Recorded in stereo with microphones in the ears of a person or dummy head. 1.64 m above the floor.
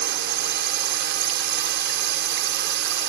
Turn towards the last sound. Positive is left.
turn(degrees=-55)  # may be behind; listen again after turning